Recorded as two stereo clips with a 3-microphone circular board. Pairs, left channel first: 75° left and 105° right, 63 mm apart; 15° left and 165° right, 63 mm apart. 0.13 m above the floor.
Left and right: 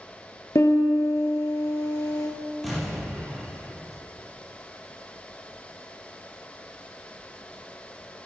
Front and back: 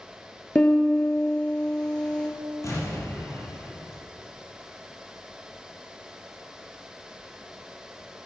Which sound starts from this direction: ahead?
An explosion, at 2.6 s.